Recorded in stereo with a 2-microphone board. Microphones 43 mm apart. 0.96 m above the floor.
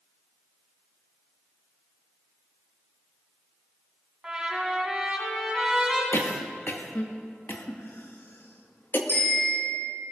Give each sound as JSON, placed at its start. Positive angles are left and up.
{"t": 4.2, "sound": "a trumpet", "side_deg": -15, "distance_m": 3.5}
{"t": 6.1, "sound": "a cough", "side_deg": 55, "distance_m": 1.7}
{"t": 9.1, "sound": "a bicycle bell", "side_deg": 90, "distance_m": 7.0}